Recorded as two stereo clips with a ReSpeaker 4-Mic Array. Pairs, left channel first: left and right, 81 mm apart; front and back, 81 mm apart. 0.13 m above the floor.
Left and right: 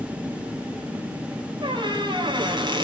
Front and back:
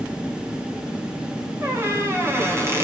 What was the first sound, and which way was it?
A squeak, 120° right.